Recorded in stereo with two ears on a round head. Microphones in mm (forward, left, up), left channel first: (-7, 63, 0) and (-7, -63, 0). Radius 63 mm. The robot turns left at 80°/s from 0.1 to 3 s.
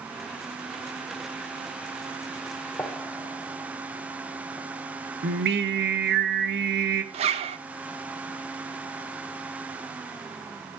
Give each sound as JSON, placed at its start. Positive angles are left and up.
{"t": 2.8, "sound": "a gunshot", "side_deg": 15, "distance_m": 1.1}
{"t": 5.2, "sound": "singing", "side_deg": -80, "distance_m": 0.7}
{"t": 7.1, "sound": "a zipper", "side_deg": -45, "distance_m": 0.7}